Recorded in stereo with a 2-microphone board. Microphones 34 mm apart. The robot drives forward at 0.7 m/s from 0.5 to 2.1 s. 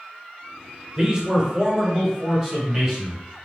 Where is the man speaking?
20° right (ahead or behind), 0.9 m; by 3.2 s 15° right (ahead or behind), 1.5 m.